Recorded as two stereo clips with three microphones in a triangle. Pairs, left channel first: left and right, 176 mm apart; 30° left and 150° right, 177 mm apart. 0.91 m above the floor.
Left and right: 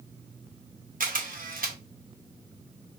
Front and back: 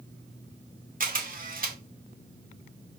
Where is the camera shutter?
120° right, 0.7 m.